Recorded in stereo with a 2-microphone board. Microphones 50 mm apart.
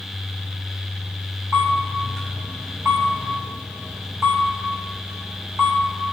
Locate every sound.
1.5 s a camera shutter: 85° right, 5.5 m